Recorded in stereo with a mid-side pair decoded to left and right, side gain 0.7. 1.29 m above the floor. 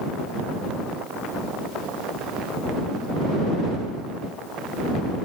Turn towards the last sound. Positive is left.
No sound to turn to.